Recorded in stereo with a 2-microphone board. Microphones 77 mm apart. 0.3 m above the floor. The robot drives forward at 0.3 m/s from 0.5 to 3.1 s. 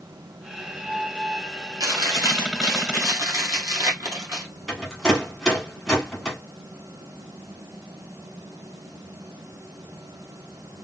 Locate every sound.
1.8 s chewing: 60° right (ahead or behind), 1.3 m; by 4.5 s 45° right (ahead or behind), 1.6 m
4.7 s a rattle: 5° left (ahead or behind), 1.5 m